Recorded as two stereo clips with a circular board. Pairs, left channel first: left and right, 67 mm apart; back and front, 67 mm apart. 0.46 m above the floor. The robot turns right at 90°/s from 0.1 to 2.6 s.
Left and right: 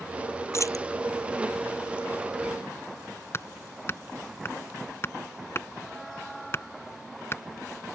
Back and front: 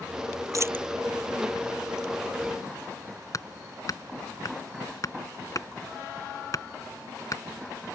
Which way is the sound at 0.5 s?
40° left.